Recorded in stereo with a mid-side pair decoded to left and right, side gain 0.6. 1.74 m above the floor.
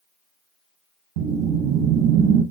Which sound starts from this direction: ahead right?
A whoosh, at 1.2 s.